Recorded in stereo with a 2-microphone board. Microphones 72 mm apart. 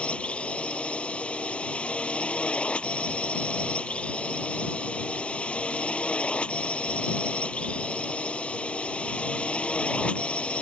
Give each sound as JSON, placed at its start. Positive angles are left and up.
{"t": 0.0, "sound": "a drone", "side_deg": 15}